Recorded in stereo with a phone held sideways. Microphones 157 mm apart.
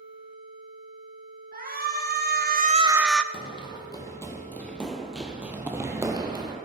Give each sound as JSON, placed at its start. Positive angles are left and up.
{"t": 1.5, "sound": "a shout", "side_deg": -70, "distance_m": 1.6}
{"t": 3.3, "sound": "running footsteps", "side_deg": 35, "distance_m": 1.9}